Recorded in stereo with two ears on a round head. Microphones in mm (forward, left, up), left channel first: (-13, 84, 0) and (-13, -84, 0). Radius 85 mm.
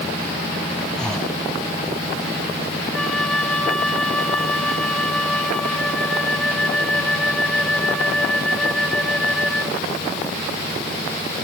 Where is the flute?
5° left (ahead or behind).